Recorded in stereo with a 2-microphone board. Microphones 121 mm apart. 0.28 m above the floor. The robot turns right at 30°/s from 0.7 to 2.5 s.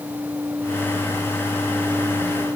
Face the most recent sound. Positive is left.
No sound to turn to.